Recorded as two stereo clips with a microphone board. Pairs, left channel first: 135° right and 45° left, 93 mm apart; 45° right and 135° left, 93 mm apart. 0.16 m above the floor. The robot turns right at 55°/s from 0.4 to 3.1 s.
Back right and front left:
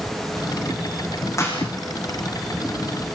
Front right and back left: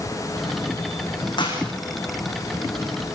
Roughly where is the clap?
Right.